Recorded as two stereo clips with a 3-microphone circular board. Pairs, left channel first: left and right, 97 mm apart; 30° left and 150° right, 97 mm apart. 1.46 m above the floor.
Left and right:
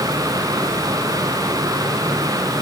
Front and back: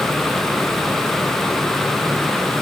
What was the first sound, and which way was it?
Only background noise.